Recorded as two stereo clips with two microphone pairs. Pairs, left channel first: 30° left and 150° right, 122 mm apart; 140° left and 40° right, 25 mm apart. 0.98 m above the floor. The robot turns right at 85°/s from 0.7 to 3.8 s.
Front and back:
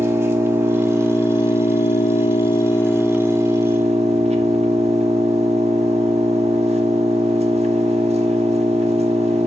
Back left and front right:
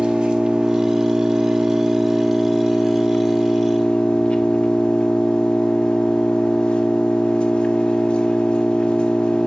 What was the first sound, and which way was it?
An engine running, 80° right.